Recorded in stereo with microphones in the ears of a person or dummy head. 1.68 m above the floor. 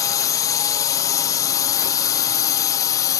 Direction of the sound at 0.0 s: 15° left (ahead or behind).